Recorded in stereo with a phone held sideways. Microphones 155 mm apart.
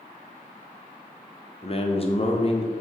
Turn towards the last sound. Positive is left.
turn(degrees=40)  # may be behind; listen again after turning